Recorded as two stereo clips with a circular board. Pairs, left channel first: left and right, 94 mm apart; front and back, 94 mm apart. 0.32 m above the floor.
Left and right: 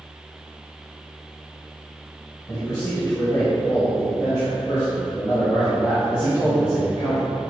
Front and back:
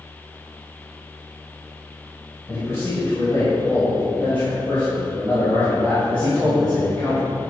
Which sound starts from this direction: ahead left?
A man speaking, at 2.5 s.